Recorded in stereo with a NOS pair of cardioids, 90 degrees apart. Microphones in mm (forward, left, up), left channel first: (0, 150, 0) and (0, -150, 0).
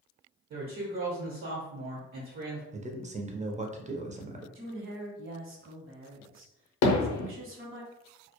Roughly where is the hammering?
Ahead left.